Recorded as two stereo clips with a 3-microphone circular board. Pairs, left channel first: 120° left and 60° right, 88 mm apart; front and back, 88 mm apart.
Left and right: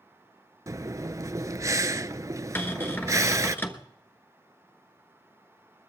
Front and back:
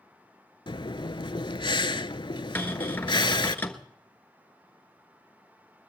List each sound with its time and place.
0.7 s breathing: 10° right, 0.5 m
2.5 s a cupboard door: 60° left, 1.2 m